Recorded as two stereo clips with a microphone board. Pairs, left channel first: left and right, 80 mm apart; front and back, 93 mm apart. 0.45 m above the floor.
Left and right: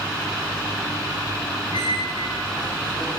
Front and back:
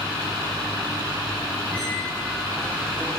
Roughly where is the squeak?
Left.